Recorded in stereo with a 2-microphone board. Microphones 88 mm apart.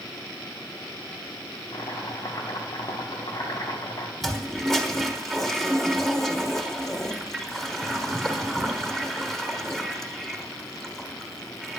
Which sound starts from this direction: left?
Chopping, at 1.7 s.